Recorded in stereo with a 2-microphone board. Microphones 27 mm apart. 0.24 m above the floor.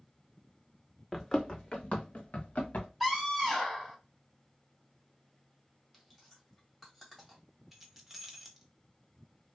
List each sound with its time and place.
1.1 s running footsteps: 10° left (ahead or behind), 0.7 m; by 2.9 s 75° left (ahead or behind), 1.1 m
3.0 s a scream: 15° right (ahead or behind), 1.7 m
5.9 s chewing: centre (ahead or behind), 1.5 m
7.7 s keys jangling: 5° right (ahead or behind), 0.7 m